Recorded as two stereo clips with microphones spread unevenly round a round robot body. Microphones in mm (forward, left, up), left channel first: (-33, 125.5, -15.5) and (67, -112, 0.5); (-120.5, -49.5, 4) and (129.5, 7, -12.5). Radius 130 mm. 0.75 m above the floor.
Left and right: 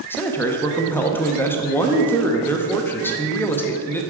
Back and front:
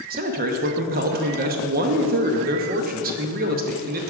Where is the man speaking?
40° left, 0.6 m.